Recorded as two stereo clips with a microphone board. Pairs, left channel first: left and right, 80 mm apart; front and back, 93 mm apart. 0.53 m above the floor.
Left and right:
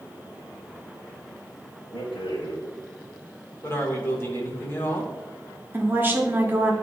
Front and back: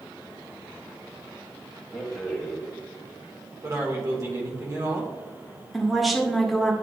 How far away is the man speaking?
About 1.8 m.